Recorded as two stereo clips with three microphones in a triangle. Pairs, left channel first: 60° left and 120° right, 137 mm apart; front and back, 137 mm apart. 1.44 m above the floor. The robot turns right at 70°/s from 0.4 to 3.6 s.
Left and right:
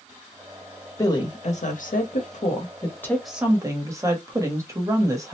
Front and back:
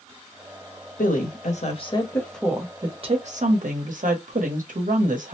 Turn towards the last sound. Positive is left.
turn(degrees=175)